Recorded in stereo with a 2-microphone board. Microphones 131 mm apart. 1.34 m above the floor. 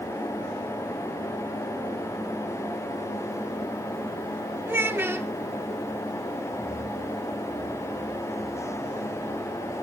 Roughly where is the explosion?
I don't hear an explosion.